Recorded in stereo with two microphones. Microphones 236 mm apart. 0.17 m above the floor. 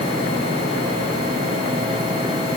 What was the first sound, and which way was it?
Only background noise.